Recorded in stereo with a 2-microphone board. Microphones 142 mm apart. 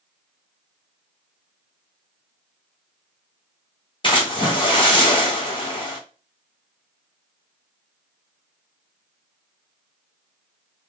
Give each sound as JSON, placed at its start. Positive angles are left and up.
{"t": 4.0, "sound": "a splash", "side_deg": 35, "distance_m": 1.4}